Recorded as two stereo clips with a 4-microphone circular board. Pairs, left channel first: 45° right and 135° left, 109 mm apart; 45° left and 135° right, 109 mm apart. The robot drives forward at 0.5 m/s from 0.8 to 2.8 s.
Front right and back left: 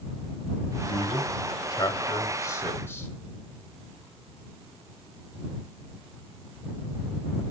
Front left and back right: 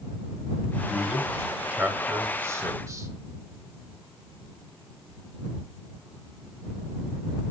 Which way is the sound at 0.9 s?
45° right.